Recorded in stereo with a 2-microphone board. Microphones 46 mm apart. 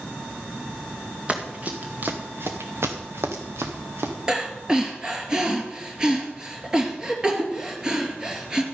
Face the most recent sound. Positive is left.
turn(degrees=-15)  # may be behind; listen again after turning